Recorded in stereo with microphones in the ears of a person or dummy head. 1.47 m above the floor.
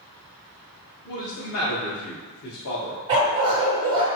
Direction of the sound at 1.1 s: 60° left (ahead or behind).